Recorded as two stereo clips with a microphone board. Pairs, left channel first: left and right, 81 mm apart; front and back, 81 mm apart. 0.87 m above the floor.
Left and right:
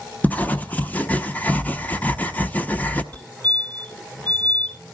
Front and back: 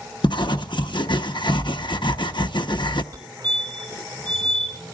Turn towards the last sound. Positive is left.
turn(degrees=155)